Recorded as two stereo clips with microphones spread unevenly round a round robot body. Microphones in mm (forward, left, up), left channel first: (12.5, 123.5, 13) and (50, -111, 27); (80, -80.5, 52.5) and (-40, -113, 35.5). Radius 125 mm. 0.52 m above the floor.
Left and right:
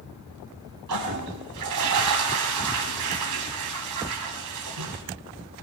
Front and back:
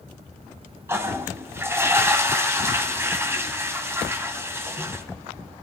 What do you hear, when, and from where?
0.9 s a toilet flushing: 95° right, 2 m